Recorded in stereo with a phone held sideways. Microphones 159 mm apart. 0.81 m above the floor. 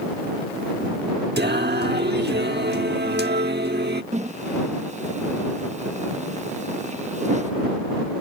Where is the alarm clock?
No alarm clock in this recording.